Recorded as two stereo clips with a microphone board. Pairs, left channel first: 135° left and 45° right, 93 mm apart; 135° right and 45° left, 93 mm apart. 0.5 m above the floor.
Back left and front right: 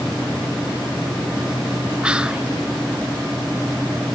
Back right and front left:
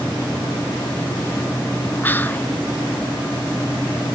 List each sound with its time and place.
2.0 s whispering: 105° right, 0.7 m